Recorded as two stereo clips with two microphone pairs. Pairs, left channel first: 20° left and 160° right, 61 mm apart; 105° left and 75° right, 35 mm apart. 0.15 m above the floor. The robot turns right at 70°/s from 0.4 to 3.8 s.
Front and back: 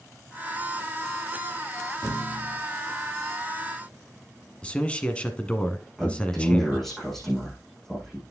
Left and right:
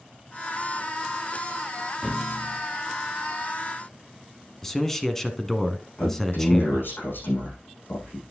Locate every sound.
2.0 s a thud: 10° right, 6 m; by 2.6 s 30° left, 6 m
4.6 s a man speaking: 50° left, 1.2 m
6.0 s a man speaking: 105° left, 6 m